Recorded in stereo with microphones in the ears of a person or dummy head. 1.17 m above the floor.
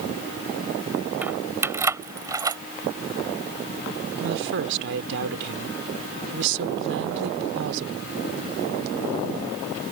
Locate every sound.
1.2 s keys jangling: 5° right (ahead or behind); by 2.6 s 20° right (ahead or behind)
4.2 s a woman speaking: 65° right (ahead or behind)